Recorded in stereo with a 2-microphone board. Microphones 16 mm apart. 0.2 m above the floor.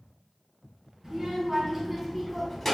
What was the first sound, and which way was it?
A child speaking, 35° right (ahead or behind).